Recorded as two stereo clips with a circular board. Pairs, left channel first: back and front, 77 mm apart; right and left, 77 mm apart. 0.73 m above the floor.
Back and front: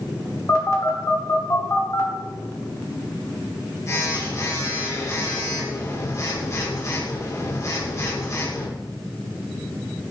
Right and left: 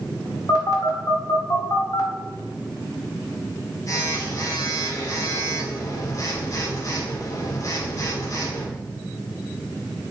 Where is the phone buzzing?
130° right, 1.9 m.